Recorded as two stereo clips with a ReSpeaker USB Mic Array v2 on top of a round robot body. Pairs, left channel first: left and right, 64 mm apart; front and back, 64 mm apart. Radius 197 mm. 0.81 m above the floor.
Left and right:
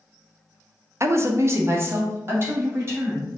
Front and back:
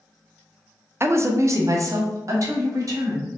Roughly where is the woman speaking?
Behind right.